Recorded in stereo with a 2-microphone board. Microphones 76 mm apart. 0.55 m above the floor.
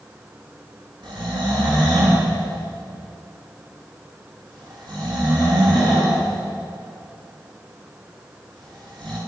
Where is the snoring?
80° right, 9 m.